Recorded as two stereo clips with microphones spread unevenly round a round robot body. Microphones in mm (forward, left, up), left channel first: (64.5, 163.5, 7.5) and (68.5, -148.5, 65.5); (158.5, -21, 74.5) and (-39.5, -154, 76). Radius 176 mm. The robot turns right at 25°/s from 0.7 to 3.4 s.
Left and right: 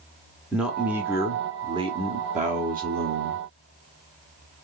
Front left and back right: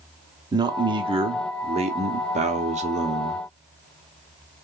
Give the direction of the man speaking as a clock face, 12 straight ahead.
7 o'clock.